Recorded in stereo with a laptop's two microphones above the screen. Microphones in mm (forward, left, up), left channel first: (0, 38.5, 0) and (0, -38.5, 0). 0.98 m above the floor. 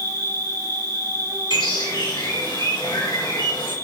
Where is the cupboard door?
I don't hear a cupboard door.